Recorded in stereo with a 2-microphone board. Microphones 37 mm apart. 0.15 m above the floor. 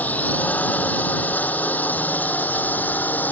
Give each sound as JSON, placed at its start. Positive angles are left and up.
{"t": 0.0, "sound": "a drone", "side_deg": 45}